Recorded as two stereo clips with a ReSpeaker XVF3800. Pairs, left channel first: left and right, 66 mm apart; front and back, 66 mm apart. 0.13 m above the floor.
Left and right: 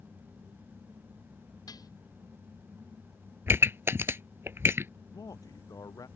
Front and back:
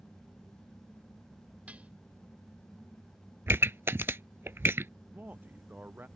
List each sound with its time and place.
1.7 s dishes clattering: 110° left
3.5 s a pop: 135° right
5.1 s a man speaking: 115° left